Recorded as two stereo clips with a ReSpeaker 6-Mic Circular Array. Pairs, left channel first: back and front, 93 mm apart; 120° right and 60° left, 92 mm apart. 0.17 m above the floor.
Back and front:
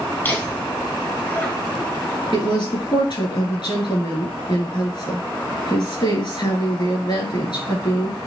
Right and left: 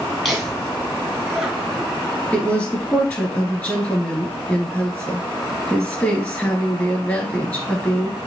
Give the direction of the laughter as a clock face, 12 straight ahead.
7 o'clock.